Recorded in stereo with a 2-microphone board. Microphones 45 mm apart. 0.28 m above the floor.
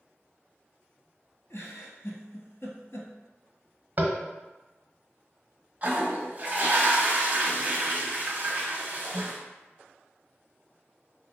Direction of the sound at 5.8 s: 35° right (ahead or behind).